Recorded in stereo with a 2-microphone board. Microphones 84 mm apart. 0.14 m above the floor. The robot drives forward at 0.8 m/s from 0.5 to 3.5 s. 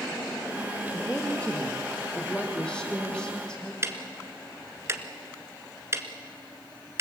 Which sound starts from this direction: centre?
A woman speaking, at 0.9 s.